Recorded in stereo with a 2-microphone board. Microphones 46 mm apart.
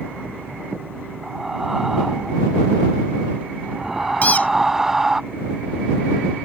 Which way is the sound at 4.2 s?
35° left (ahead or behind).